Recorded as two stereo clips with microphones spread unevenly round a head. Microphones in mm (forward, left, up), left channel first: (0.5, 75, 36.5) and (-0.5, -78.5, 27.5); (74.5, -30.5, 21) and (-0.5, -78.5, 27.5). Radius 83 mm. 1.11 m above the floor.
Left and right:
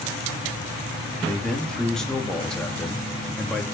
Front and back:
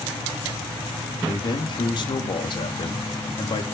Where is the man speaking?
Straight ahead, 2.5 m.